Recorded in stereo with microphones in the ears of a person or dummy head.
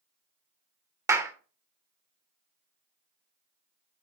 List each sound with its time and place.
1.1 s a clap: 20° right (ahead or behind), 0.9 m